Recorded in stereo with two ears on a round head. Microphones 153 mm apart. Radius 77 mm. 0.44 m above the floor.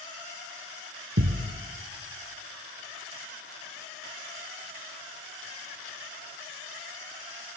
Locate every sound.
1.2 s a thud: 75° right (ahead or behind), 0.8 m